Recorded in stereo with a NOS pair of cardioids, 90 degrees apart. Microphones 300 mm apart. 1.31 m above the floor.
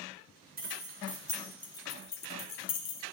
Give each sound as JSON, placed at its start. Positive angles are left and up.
{"t": 0.6, "sound": "keys jangling", "azimuth_deg": -30, "distance_m": 1.2}